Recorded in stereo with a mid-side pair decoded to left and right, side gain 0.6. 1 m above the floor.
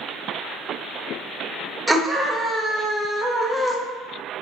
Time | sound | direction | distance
1.9 | a scream | 5° right | 0.8 m